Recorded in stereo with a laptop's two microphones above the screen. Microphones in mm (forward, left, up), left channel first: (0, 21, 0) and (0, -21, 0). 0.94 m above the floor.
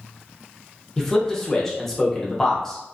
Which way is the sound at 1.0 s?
10° left (ahead or behind).